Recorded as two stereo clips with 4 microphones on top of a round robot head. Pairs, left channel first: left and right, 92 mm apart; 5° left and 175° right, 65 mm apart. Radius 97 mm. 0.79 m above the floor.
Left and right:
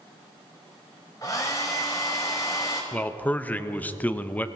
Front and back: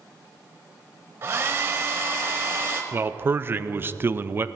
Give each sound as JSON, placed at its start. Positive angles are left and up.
{"t": 1.2, "sound": "a hair dryer", "azimuth_deg": 150, "distance_m": 0.6}
{"t": 2.9, "sound": "a man speaking", "azimuth_deg": 155, "distance_m": 0.6}